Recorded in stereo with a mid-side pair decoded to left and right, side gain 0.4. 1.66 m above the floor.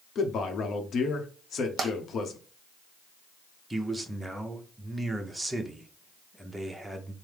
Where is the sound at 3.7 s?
10° right, 0.9 m.